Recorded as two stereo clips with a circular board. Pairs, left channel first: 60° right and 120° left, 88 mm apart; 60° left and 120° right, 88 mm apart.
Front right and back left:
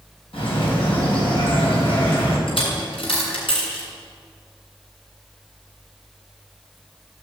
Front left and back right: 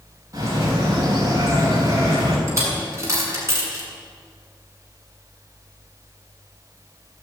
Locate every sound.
0.3 s a bird: 70° right, 9.5 m
2.5 s a dropped coin: 65° right, 8 m